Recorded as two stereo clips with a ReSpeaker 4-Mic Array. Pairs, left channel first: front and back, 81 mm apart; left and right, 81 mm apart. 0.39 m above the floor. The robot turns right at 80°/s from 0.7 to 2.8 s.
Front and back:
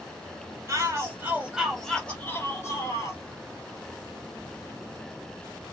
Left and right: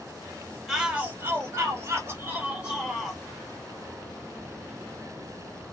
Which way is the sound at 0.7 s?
175° right.